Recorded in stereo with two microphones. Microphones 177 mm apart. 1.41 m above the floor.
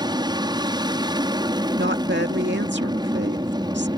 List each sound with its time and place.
0.0 s an aircraft: 20° right (ahead or behind)
1.8 s a woman speaking: 80° right